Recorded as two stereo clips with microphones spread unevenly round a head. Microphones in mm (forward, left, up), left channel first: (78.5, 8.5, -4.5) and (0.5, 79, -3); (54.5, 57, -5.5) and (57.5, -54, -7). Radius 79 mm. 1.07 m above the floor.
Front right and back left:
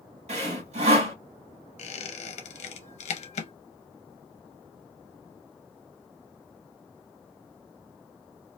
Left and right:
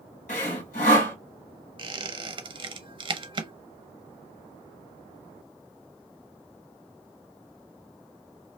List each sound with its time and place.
0.3 s sawing: 135° left, 1.7 m
1.8 s a squeak: 45° right, 0.7 m